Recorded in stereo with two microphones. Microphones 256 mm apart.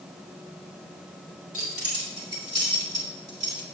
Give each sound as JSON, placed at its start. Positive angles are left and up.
{"t": 1.5, "sound": "keys jangling", "side_deg": -55, "distance_m": 2.0}